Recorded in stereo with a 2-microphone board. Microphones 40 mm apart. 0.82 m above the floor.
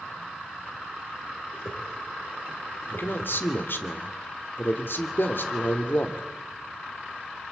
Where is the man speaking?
65° left (ahead or behind), 2.5 m.